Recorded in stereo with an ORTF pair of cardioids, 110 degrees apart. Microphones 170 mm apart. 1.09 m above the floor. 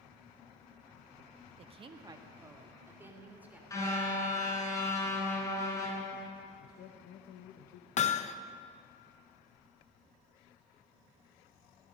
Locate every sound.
1.6 s a woman speaking: 40° right, 1.2 m; by 3.6 s 10° right, 3.5 m
3.7 s a car horn: 20° left, 5 m
6.6 s a man speaking: 65° left, 1.0 m
8.0 s hammering: 45° left, 0.8 m